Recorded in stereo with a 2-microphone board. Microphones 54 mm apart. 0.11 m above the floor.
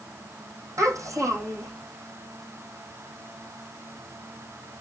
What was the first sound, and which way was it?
A child speaking, 65° right (ahead or behind).